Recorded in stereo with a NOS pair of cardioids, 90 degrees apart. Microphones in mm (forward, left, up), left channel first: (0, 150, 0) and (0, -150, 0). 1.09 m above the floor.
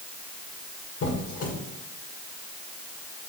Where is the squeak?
55° left, 1.9 m.